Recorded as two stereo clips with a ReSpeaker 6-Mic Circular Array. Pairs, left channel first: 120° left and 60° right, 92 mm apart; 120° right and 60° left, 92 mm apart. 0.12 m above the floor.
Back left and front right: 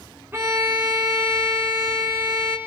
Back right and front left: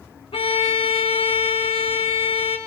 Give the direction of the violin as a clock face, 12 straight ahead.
4 o'clock.